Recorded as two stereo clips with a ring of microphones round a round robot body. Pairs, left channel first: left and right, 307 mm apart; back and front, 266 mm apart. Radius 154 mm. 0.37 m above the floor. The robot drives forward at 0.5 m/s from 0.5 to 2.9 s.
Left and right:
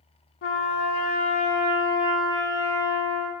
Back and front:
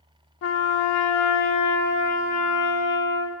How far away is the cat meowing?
I don't hear a cat meowing.